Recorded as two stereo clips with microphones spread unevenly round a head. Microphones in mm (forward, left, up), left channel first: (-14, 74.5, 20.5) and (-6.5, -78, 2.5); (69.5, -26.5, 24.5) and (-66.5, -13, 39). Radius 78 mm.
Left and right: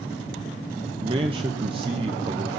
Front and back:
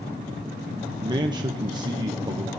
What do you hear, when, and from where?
1.0 s a man speaking: 130° right, 0.9 m